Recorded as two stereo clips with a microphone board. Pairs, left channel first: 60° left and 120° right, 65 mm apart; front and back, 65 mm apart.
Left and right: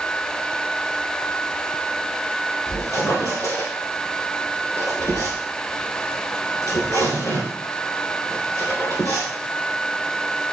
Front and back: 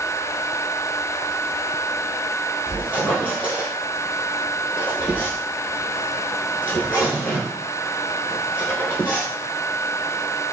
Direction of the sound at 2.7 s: 55° left.